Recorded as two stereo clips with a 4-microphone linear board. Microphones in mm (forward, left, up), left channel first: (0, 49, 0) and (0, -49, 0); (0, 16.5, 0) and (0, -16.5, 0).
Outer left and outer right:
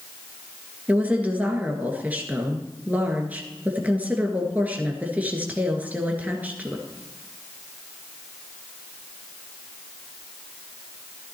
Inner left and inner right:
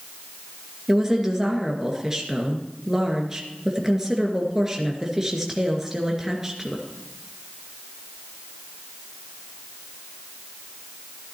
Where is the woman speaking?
15° right (ahead or behind), 2 m.